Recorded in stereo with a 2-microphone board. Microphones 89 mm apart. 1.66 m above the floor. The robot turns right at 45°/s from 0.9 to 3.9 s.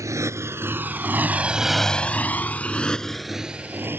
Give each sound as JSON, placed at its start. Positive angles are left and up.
{"t": 0.0, "sound": "a motorcycle", "side_deg": -35}